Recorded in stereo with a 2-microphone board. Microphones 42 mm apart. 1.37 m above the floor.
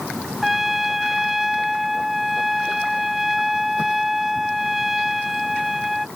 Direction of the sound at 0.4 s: 5° right (ahead or behind).